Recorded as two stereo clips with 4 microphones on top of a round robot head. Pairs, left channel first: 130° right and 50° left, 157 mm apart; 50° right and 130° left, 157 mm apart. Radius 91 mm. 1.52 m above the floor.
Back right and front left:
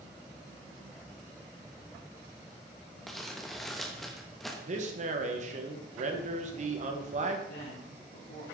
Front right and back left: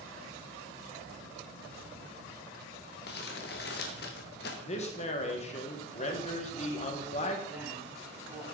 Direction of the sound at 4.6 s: Straight ahead.